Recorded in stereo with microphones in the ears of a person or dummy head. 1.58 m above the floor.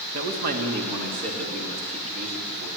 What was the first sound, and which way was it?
A man speaking, 40° right (ahead or behind).